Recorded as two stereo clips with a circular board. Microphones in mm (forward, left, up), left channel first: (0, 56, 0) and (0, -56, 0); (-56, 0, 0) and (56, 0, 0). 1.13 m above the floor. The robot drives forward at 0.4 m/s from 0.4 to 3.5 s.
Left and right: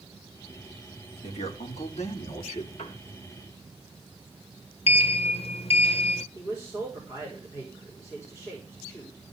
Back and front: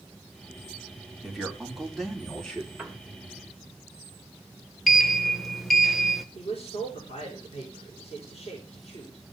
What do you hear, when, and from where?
1.2 s a man speaking: 85° left, 3 m; by 2.7 s 95° left, 3 m
2.8 s a piano: 85° left, 2.5 m
4.9 s a sliding door: 90° left, 0.9 m
6.3 s a man speaking: 155° left, 5 m